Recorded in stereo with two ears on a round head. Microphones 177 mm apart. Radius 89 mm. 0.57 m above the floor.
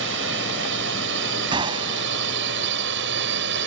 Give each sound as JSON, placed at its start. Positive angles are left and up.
{"t": 0.0, "sound": "a drone", "side_deg": -65}
{"t": 1.5, "sound": "a gunshot", "side_deg": -25}